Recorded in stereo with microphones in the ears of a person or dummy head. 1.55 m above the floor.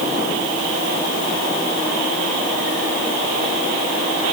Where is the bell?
No bell in this recording.